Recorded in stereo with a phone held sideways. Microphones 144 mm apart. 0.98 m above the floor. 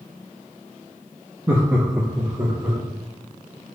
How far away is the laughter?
About 0.9 m.